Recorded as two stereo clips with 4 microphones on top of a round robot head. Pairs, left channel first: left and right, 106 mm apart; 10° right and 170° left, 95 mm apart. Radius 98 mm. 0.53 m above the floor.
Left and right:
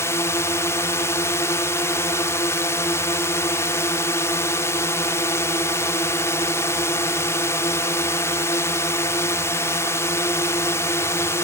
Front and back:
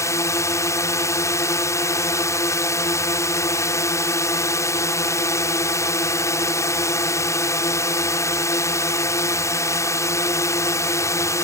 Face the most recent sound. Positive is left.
turn(degrees=35)